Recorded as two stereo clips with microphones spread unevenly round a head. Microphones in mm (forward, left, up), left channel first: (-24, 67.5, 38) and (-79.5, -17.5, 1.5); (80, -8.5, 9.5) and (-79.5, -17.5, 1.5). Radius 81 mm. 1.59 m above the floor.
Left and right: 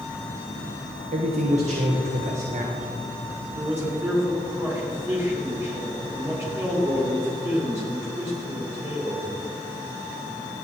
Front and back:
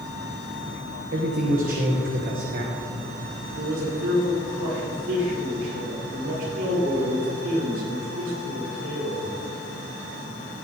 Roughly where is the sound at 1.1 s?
Behind right.